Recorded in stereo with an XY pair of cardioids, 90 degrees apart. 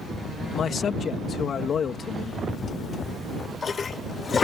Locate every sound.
0.5 s a man speaking: 60° left
2.5 s a toilet flushing: 45° left